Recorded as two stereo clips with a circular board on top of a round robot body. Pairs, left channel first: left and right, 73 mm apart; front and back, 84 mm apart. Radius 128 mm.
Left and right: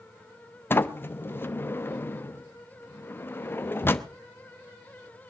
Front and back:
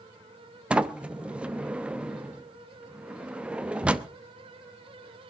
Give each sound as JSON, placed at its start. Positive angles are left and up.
{"t": 0.7, "sound": "a sliding door", "azimuth_deg": 115, "distance_m": 1.1}